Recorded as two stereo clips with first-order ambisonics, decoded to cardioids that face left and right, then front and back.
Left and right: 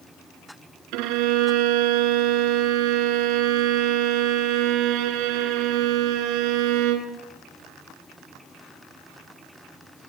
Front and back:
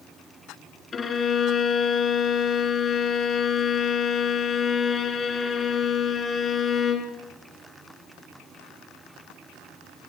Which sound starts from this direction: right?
A violin, at 0.9 s.